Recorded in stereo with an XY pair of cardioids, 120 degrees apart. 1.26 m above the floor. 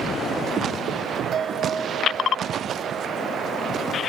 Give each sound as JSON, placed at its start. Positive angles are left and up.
{"t": 1.3, "sound": "a bell", "azimuth_deg": -45, "distance_m": 1.8}